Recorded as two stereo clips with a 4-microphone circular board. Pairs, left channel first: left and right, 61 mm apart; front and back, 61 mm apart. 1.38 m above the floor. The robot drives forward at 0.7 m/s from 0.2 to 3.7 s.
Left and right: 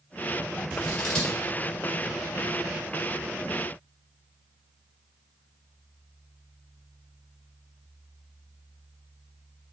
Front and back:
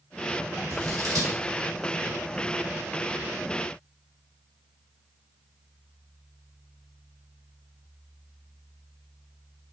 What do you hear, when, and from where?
0.7 s scissors: 165° left, 1.2 m